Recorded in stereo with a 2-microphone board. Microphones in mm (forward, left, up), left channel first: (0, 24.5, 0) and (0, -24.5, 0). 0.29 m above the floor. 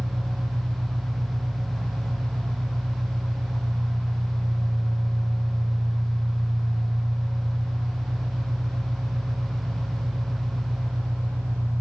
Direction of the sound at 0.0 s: 70° right (ahead or behind).